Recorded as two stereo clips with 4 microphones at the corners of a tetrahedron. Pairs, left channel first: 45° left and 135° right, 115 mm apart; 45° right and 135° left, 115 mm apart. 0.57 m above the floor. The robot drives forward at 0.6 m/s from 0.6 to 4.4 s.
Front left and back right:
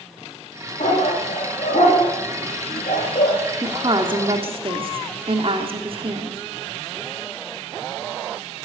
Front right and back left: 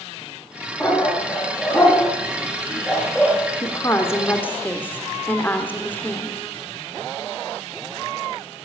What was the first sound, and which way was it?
A dog barking, 35° left.